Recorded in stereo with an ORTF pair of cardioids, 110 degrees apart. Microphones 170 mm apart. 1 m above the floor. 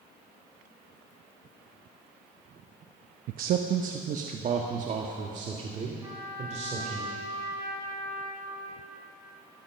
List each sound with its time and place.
3.3 s a man speaking: 60° right, 0.7 m; by 7.0 s 45° right, 3 m
6.0 s a trumpet: 20° right, 4.5 m